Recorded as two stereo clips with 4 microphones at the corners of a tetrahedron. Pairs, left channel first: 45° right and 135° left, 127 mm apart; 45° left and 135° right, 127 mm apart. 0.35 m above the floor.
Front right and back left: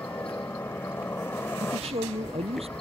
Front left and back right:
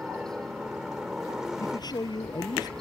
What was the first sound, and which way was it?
A helicopter, 60° right.